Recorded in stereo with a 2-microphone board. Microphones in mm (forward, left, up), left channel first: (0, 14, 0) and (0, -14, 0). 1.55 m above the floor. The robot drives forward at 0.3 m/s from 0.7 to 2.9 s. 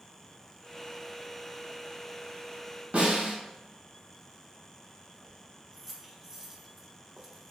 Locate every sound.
2.9 s a snare drum: 90° right, 2.0 m
5.2 s keys jangling: 15° right (ahead or behind), 0.8 m